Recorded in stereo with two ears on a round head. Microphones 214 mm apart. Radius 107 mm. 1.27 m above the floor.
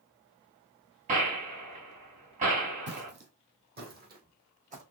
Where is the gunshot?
35° right (ahead or behind), 3 m.